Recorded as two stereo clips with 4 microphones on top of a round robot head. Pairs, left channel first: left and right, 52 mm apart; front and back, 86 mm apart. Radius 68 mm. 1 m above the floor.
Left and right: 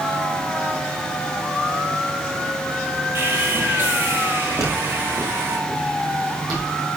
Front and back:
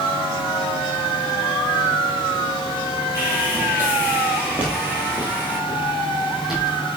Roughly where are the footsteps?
Right.